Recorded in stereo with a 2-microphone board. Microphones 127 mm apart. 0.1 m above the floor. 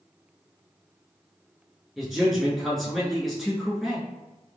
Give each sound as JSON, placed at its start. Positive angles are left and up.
{"t": 2.0, "sound": "a man speaking", "side_deg": 0, "distance_m": 1.1}